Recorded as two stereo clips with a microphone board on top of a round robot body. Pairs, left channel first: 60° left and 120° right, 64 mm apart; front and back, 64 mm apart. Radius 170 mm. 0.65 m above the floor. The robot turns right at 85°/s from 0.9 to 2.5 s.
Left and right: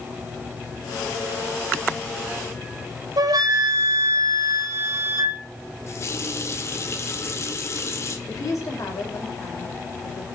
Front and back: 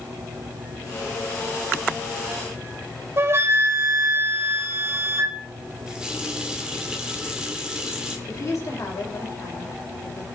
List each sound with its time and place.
3.2 s a flute: 135° right, 1.4 m
5.9 s a running tap: 100° left, 1.7 m
8.3 s a woman speaking: 30° left, 3.5 m